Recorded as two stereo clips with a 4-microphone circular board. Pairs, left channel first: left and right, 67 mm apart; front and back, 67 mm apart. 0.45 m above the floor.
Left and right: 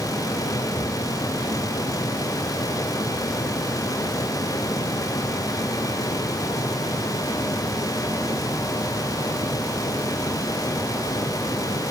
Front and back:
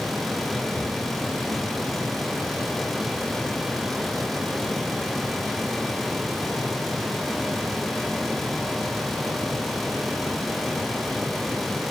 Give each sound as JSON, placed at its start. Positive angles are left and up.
{"t": 0.8, "sound": "a cupboard door", "azimuth_deg": 65, "distance_m": 6.5}